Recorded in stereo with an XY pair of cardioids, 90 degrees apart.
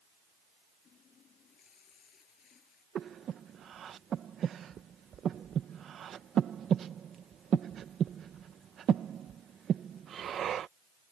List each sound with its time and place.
0.8 s a running tap: 60° left
3.0 s breathing: 65° right